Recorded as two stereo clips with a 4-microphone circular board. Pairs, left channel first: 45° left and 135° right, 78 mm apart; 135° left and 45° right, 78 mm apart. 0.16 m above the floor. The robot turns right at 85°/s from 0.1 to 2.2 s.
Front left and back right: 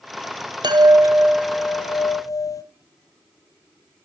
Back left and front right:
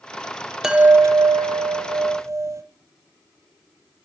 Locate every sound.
0.6 s a chime: 130° right, 0.7 m; by 2.6 s 5° left, 0.7 m